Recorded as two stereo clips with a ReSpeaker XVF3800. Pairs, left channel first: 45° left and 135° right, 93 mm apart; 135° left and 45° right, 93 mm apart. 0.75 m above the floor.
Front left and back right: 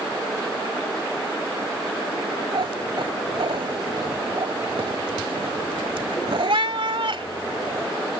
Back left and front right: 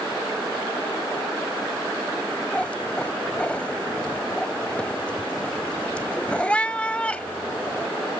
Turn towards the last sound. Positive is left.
turn(degrees=-150)